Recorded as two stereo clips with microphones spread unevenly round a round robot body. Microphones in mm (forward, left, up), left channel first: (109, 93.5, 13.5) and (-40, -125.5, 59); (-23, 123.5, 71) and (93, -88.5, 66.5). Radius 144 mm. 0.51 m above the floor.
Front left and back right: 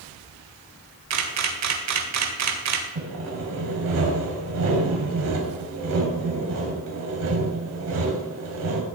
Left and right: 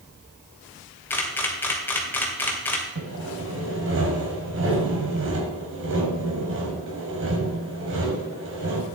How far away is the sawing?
About 3 m.